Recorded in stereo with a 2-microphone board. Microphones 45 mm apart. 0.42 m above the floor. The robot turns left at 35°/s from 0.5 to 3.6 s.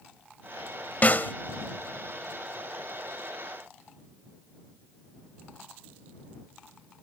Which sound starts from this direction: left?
A snare drum, at 1.0 s.